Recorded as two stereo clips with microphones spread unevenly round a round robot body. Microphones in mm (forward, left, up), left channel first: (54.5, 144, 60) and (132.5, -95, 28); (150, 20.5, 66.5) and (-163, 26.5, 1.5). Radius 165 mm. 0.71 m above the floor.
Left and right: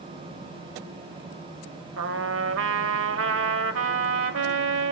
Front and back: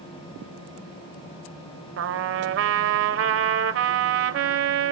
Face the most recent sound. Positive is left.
turn(degrees=-125)